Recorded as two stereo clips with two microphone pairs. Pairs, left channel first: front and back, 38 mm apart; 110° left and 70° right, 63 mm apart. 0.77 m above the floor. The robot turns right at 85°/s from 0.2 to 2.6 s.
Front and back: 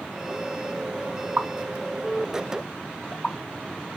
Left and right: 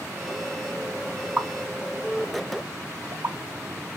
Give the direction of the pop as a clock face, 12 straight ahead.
5 o'clock.